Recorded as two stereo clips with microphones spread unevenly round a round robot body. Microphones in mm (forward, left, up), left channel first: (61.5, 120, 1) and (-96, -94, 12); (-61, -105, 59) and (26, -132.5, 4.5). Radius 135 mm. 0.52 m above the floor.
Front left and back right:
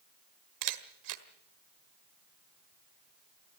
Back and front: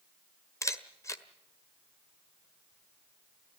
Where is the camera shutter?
125° right, 1.5 m.